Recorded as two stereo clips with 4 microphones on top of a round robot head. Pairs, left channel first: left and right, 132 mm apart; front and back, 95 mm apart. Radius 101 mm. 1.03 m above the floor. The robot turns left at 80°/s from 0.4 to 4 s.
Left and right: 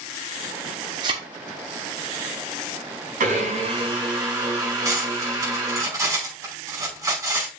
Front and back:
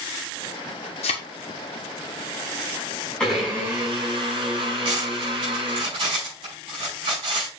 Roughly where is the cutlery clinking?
Behind right.